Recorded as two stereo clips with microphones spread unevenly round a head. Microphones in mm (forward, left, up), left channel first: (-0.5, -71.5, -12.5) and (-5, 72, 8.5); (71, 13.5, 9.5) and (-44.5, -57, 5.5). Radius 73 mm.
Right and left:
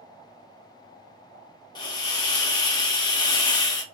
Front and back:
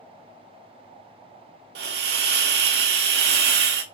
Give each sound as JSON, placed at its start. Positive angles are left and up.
{"t": 1.8, "sound": "a hiss", "azimuth_deg": -150, "distance_m": 0.6}